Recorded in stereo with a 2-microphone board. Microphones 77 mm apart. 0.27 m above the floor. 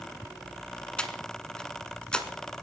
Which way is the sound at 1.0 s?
10° left (ahead or behind).